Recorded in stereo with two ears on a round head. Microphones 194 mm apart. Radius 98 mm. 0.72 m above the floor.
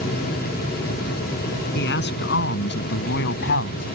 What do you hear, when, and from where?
1.8 s a man speaking: 55° left (ahead or behind); by 3.9 s 60° left (ahead or behind)